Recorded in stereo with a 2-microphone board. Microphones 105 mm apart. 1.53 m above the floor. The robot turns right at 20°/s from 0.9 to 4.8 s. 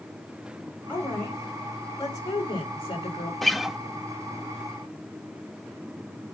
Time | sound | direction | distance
0.9 | a woman speaking | 15° left | 6.5 m
3.4 | a guitar | centre (ahead or behind) | 0.5 m